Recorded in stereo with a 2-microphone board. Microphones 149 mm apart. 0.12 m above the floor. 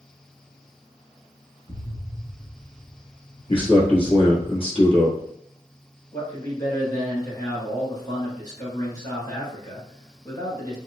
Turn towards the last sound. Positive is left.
turn(degrees=30)  # may be behind; listen again after turning